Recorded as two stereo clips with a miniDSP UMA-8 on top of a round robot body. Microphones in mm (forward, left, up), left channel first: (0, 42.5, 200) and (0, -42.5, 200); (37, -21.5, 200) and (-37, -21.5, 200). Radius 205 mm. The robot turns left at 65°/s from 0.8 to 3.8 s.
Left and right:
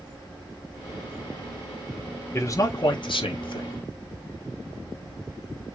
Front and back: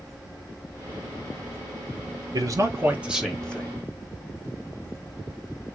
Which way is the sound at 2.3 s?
150° left.